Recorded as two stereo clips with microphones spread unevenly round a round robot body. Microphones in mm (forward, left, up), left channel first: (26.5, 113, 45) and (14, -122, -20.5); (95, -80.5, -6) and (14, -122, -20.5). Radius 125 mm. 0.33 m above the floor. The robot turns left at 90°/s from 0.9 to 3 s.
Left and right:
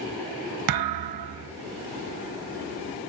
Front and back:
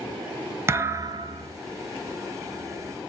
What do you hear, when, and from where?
0.7 s a thud: 85° right, 0.5 m; by 1.5 s 145° right, 0.5 m